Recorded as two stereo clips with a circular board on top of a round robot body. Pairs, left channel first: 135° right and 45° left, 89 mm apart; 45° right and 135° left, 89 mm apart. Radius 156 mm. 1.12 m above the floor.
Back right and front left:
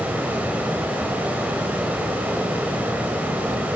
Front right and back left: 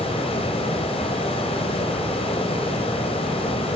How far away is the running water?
About 1.7 m.